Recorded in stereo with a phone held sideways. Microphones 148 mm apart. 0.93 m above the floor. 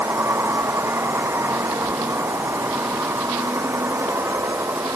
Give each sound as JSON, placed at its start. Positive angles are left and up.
{"t": 0.0, "sound": "a vehicle", "side_deg": -15}